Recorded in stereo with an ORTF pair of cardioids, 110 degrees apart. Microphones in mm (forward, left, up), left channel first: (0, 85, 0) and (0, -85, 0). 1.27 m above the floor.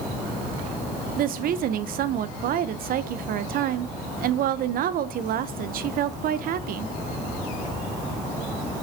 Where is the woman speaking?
60° right, 0.8 m.